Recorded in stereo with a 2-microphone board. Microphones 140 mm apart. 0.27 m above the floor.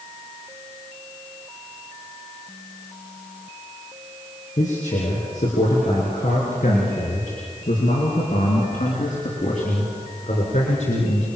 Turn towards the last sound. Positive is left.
turn(degrees=60)  # may be behind; listen again after turning